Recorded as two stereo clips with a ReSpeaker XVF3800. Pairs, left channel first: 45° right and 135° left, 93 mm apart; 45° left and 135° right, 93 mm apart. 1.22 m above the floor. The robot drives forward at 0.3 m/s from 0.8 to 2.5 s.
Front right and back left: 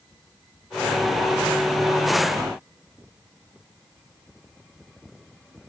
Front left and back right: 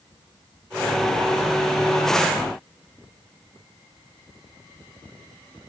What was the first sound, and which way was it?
Only background noise.